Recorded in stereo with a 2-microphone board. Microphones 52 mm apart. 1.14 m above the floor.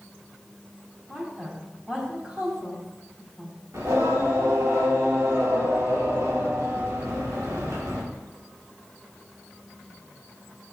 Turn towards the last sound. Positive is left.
turn(degrees=-75)  # may be behind; listen again after turning